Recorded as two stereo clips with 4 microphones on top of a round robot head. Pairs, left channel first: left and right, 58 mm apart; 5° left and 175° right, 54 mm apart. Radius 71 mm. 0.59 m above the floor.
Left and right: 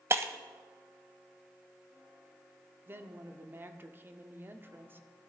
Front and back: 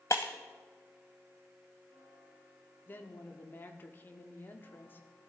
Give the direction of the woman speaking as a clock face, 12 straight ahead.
1 o'clock.